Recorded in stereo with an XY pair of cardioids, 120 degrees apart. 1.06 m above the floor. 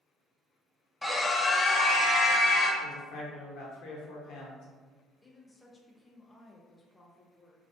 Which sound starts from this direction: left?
A man speaking, at 2.8 s.